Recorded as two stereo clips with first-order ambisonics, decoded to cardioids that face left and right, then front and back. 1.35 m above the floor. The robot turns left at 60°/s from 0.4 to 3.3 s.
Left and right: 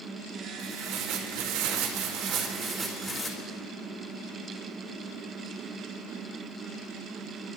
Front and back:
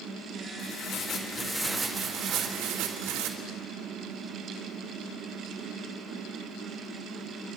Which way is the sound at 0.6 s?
30° right.